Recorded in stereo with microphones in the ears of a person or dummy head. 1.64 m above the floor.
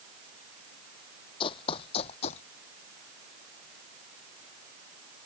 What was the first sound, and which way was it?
Running footsteps, 30° left (ahead or behind).